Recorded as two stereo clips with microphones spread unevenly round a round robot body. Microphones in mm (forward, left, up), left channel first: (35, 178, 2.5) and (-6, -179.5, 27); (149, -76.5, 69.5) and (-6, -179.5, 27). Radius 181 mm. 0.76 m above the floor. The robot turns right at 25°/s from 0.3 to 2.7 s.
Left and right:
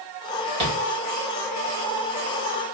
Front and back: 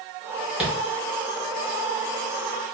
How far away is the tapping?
About 2.5 m.